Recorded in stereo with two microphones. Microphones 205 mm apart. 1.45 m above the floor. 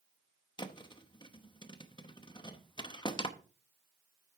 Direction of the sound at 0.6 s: 25° left (ahead or behind).